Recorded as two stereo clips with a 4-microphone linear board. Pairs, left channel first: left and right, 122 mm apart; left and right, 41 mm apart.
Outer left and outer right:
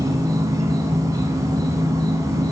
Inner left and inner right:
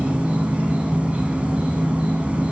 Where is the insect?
30° right (ahead or behind), 1.2 m.